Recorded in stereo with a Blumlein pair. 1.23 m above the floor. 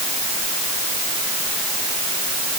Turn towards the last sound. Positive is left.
No sound to turn to.